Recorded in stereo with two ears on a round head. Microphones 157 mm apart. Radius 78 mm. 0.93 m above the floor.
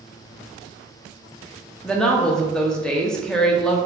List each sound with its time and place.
1.8 s a woman speaking: 5° left (ahead or behind), 0.5 m